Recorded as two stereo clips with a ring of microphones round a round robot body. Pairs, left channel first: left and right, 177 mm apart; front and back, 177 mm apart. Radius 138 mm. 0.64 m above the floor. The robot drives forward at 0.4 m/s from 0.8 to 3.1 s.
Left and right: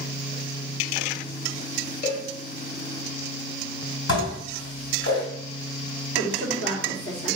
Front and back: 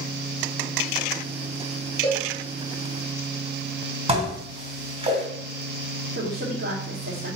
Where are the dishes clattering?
120° left, 3 m.